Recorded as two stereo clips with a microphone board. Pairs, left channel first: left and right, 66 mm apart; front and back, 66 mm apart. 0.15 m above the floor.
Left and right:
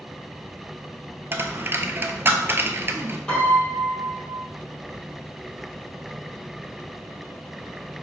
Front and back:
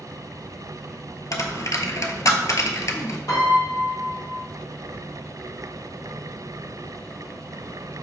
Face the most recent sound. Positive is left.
turn(degrees=10)